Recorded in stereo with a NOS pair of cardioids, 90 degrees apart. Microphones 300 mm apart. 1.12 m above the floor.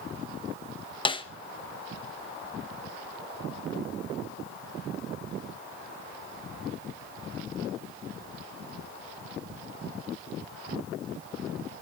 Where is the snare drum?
15° left, 0.9 m.